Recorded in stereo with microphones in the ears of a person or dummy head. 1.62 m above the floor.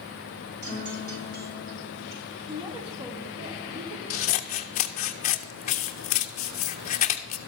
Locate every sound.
0.6 s a guitar: 60° right (ahead or behind), 5.5 m
2.5 s a woman speaking: 25° right (ahead or behind), 1.1 m
4.1 s scissors: 40° left (ahead or behind), 0.6 m